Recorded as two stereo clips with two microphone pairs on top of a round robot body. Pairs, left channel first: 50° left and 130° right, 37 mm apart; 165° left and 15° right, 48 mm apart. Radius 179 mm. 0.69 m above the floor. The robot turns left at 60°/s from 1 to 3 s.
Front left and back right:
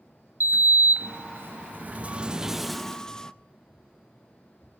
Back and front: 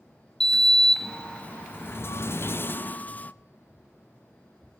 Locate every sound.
0.4 s a sliding door: 120° right, 0.7 m; by 3.3 s 120° left, 0.7 m